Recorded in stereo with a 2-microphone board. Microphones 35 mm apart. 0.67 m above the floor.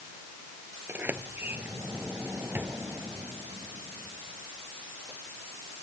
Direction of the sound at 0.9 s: 70° right (ahead or behind).